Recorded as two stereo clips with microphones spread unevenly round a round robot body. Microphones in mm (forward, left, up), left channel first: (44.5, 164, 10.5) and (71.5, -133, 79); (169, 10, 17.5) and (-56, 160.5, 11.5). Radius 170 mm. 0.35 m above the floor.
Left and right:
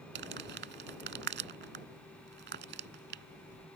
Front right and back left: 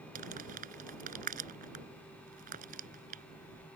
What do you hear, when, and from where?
0.1 s crumpling: 145° right